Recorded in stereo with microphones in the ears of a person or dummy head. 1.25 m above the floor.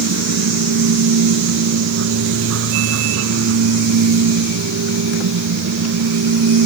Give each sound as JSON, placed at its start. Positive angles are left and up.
{"t": 0.0, "sound": "a machine running", "side_deg": -85}